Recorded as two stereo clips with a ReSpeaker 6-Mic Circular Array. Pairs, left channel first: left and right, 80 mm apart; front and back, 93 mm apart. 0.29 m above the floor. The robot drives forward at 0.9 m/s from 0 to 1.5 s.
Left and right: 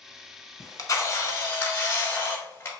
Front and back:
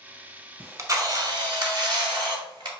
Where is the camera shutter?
115° left, 0.9 m; by 2.7 s 150° left, 1.4 m.